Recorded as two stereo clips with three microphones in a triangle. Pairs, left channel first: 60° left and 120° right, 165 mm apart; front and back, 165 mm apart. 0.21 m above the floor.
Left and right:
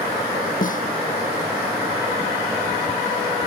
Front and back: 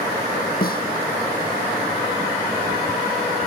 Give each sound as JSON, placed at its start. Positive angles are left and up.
{"t": 0.6, "sound": "a snare drum", "azimuth_deg": 25}